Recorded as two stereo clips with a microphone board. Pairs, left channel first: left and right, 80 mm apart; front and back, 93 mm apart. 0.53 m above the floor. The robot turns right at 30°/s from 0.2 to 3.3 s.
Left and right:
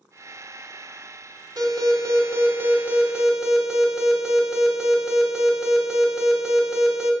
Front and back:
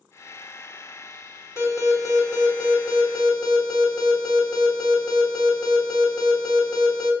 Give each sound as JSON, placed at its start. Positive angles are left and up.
{"t": 1.6, "sound": "an alarm", "azimuth_deg": -55, "distance_m": 2.5}